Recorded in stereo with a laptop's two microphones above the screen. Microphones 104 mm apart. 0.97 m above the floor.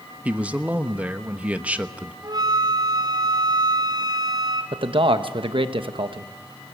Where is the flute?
40° right (ahead or behind), 3 m.